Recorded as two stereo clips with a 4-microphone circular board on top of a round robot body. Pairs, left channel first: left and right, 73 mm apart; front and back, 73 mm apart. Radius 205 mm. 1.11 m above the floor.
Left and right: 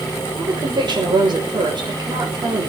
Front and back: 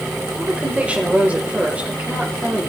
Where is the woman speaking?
105° right, 6 m.